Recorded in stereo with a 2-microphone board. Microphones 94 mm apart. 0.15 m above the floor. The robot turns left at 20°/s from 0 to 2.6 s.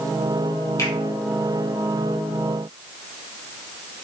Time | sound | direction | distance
0.8 | a finger snap | 35° left (ahead or behind) | 4 m